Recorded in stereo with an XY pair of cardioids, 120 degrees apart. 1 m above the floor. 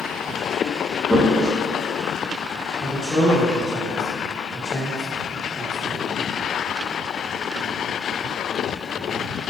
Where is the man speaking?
25° left, 0.7 m.